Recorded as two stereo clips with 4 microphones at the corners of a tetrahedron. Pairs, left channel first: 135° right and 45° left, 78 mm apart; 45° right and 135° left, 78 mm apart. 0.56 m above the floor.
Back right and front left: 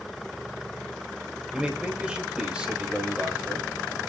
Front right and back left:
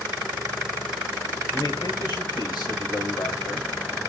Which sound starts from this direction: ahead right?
A man speaking, at 1.5 s.